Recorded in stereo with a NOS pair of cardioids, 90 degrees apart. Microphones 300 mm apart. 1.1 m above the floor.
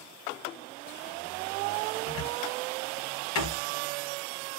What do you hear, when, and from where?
2.1 s a cupboard door: 65° left, 1.1 m